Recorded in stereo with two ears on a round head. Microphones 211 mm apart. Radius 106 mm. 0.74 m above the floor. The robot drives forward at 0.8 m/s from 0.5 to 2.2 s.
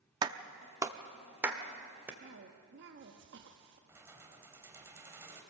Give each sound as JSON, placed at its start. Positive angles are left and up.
{"t": 0.2, "sound": "a clap", "side_deg": -20, "distance_m": 0.8}
{"t": 2.2, "sound": "a cough", "side_deg": -50, "distance_m": 1.3}
{"t": 3.9, "sound": "keys jangling", "side_deg": -10, "distance_m": 2.0}